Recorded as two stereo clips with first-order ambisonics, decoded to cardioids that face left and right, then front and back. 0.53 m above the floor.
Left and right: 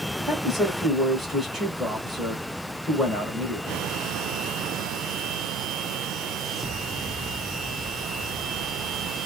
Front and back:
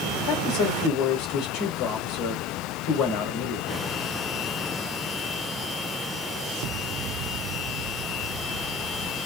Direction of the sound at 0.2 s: 5° right.